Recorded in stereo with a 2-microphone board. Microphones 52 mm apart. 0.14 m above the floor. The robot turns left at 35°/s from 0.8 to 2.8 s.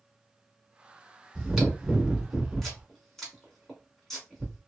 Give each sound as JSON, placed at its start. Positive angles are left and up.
{"t": 1.4, "sound": "chewing", "side_deg": -5, "distance_m": 1.4}